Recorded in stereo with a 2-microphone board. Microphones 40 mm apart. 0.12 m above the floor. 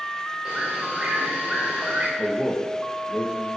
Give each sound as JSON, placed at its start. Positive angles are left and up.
{"t": 0.5, "sound": "a bird", "side_deg": -20, "distance_m": 4.0}
{"t": 2.2, "sound": "a man speaking", "side_deg": -15, "distance_m": 3.5}